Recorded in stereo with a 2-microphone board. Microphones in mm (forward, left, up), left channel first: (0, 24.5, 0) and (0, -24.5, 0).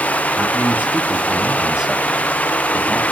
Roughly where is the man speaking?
Right.